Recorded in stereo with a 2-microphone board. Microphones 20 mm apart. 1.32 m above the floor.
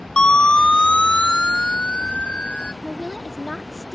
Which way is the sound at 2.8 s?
15° right (ahead or behind).